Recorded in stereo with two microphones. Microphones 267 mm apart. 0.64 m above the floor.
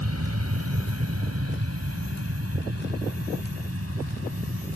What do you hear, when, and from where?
0.0 s an aircraft: 65° right (ahead or behind); by 4.8 s 55° right (ahead or behind)